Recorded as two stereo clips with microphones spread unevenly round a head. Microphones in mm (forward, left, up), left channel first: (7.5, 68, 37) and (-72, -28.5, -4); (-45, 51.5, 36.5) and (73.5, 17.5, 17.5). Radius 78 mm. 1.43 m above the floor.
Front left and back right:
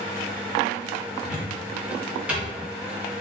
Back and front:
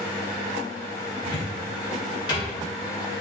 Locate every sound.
1.2 s a cupboard door: 135° left, 1.4 m